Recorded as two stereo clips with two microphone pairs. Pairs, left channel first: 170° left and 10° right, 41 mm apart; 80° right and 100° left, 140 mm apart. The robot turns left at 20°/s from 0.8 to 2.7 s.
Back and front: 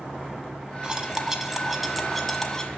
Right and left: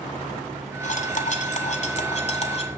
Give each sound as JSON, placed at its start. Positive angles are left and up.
{"t": 0.8, "sound": "cutlery clinking", "azimuth_deg": -80, "distance_m": 1.2}